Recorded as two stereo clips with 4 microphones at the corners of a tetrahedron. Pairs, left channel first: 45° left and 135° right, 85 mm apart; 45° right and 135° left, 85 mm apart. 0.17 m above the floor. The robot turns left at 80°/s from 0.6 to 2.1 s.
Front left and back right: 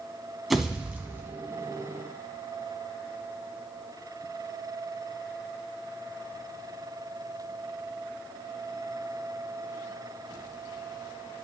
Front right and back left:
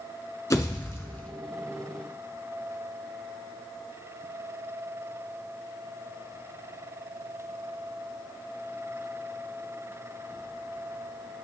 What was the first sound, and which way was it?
A pop, 50° right.